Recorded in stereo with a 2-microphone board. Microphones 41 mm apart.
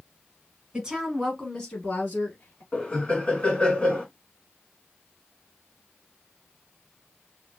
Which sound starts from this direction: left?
Laughter, at 2.7 s.